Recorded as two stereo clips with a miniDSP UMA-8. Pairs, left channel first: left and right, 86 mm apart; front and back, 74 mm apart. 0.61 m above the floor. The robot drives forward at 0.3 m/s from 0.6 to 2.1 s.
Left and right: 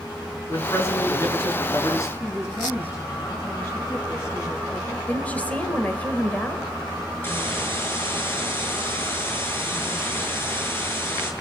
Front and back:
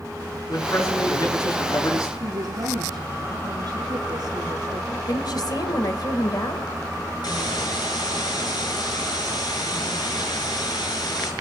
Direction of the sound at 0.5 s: 35° left.